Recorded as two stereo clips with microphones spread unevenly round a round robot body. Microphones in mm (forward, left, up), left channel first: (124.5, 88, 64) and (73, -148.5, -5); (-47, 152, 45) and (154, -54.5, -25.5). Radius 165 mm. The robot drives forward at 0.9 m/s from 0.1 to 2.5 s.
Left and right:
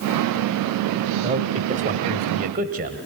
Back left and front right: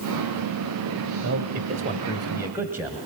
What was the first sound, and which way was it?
A man speaking, 60° right.